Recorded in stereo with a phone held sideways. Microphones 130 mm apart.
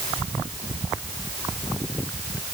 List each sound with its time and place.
Only background noise.